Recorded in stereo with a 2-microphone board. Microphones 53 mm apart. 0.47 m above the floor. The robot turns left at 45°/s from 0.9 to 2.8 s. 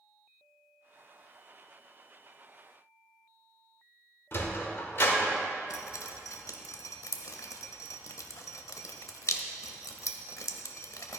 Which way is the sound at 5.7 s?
85° left.